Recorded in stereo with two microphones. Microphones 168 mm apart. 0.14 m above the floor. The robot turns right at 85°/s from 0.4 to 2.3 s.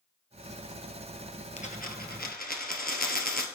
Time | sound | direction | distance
1.6 | a dropped coin | 45° left | 1.4 m